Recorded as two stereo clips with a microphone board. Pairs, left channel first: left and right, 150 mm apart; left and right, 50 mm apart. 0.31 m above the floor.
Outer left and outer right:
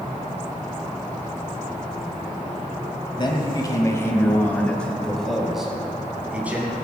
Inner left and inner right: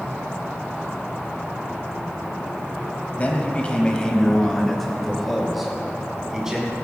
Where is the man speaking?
30° left (ahead or behind), 1.8 m; by 6.7 s 15° right (ahead or behind), 3 m.